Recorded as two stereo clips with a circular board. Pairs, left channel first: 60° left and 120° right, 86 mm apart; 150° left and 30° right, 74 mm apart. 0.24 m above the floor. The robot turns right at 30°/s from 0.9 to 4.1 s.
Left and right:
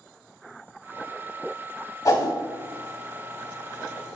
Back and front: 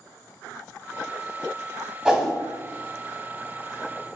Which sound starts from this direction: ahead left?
A whoosh, at 2.0 s.